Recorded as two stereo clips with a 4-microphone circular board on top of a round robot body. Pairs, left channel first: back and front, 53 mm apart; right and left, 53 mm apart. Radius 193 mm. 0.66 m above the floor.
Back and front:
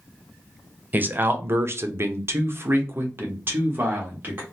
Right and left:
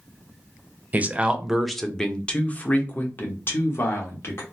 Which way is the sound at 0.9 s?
40° left.